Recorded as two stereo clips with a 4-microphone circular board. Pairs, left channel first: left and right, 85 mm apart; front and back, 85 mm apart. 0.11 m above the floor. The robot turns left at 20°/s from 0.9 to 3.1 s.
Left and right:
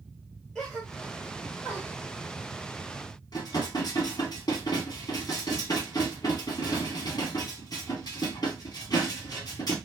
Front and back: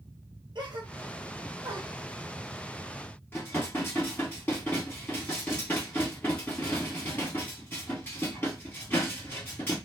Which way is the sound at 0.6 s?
175° left.